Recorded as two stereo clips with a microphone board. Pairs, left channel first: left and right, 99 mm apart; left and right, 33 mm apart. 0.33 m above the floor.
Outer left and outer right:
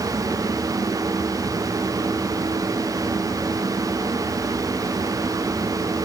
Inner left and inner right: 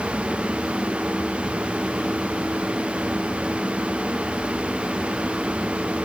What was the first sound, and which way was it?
Only background noise.